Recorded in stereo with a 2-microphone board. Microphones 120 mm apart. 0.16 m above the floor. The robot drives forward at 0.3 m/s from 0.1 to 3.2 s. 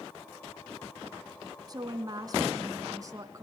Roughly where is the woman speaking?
Right.